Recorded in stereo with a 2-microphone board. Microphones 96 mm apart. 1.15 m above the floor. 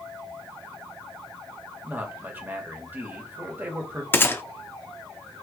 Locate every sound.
1.8 s a man speaking: 20° right (ahead or behind), 1.3 m
4.1 s a gunshot: 25° left (ahead or behind), 0.6 m